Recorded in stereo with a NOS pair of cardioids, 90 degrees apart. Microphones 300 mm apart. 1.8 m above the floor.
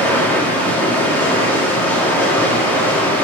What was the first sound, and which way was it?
Running water, 5° left.